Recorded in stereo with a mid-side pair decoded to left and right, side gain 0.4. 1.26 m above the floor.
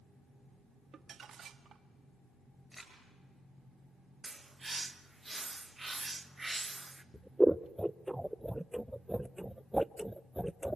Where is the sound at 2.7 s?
5° left, 9 m.